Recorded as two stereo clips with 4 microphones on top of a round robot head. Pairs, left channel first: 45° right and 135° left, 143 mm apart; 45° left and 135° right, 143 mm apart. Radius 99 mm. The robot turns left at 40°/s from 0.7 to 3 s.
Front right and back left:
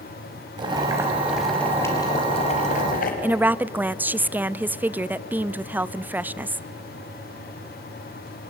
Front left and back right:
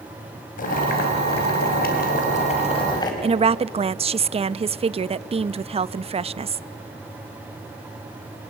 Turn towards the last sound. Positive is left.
turn(degrees=-150)